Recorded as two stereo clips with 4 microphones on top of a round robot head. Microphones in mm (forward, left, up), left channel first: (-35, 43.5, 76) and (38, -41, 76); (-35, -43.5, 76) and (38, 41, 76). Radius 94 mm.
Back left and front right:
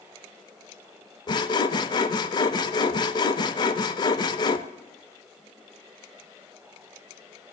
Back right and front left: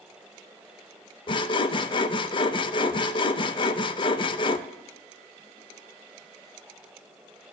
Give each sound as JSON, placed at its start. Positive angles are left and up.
{"t": 1.3, "sound": "sawing", "azimuth_deg": -175, "distance_m": 0.6}